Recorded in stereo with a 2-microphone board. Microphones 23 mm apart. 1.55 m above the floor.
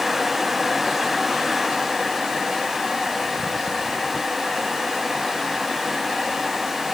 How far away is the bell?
No bell in this recording.